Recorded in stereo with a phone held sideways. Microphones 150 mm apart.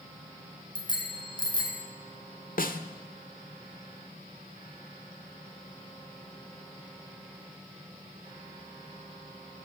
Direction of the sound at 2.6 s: 70° left (ahead or behind).